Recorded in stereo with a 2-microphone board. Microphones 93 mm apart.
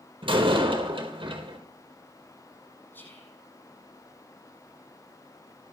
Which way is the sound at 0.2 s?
65° right (ahead or behind).